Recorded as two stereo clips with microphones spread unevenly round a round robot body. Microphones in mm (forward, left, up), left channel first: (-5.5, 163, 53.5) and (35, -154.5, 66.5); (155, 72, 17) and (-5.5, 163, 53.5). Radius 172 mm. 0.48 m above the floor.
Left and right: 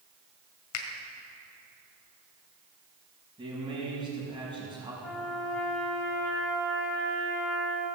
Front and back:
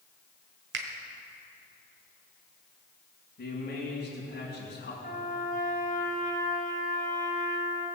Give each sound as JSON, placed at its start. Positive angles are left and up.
{"t": 0.7, "sound": "a finger snap", "azimuth_deg": 135, "distance_m": 1.8}
{"t": 3.4, "sound": "a man speaking", "azimuth_deg": -5, "distance_m": 5.0}
{"t": 5.0, "sound": "a trumpet", "azimuth_deg": 10, "distance_m": 2.5}